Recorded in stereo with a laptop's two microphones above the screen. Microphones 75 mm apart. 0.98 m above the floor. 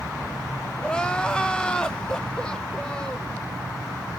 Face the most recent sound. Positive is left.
turn(degrees=10)  # may be behind; listen again after turning